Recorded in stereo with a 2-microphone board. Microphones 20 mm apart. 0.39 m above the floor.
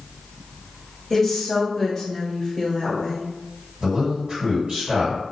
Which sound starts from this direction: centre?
A woman speaking, at 1.1 s.